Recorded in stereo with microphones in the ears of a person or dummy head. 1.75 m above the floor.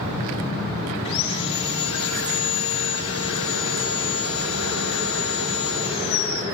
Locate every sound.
1.1 s sawing: 70° left (ahead or behind), 5.5 m